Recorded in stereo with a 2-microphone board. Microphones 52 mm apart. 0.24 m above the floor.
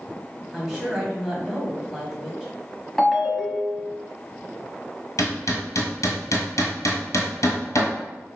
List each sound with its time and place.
0.5 s a woman speaking: 10° right (ahead or behind), 1.5 m
3.0 s a ringtone: 5° left (ahead or behind), 0.7 m
5.2 s hammering: 75° left (ahead or behind), 1.3 m